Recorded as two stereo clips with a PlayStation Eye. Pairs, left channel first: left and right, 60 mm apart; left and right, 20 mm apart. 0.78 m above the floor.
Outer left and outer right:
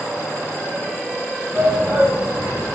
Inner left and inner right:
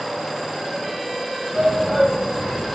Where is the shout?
20° right (ahead or behind), 4.5 m.